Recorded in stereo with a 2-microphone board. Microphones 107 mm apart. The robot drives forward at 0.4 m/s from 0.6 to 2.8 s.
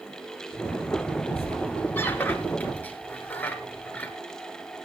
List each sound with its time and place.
1.4 s a squeak: 20° left (ahead or behind), 1.4 m; by 4.1 s 15° left (ahead or behind), 1.9 m